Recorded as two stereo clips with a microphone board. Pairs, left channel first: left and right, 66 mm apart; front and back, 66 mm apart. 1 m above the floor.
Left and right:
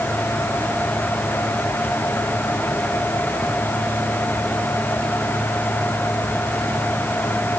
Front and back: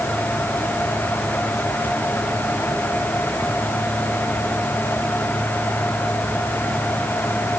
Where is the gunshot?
No gunshot in this recording.